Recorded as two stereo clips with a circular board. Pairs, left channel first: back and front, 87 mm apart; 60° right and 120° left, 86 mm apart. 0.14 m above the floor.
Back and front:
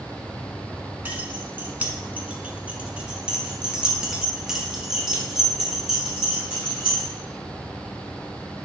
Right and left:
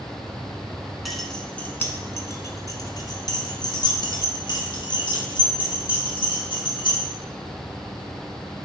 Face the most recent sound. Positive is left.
turn(degrees=-85)